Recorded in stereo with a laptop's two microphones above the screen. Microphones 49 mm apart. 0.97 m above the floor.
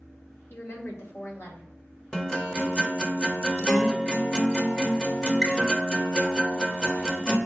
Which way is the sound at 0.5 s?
50° left (ahead or behind).